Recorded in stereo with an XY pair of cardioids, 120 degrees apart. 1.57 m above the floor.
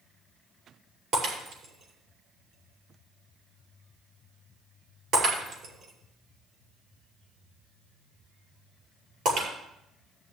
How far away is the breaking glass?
About 5.5 m.